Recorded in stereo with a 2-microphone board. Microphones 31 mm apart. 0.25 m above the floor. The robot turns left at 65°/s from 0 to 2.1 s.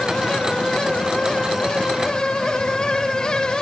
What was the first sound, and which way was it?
Only background noise.